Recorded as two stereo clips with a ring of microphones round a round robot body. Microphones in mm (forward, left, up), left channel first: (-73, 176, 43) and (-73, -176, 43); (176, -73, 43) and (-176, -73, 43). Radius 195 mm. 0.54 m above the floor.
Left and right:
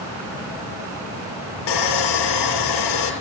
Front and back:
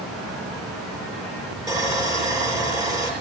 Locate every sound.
1.7 s sawing: 100° left, 6 m